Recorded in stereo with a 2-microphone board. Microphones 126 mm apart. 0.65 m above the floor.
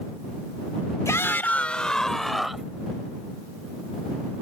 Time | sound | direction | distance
1.1 | a shout | 25° left (ahead or behind) | ?